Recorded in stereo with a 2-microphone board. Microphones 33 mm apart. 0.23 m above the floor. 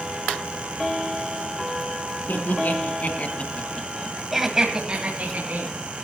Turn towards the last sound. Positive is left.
turn(degrees=-55)  # may be behind; listen again after turning